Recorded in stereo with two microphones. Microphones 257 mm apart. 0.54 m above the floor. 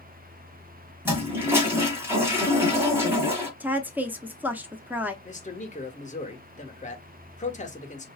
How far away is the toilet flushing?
About 1.7 m.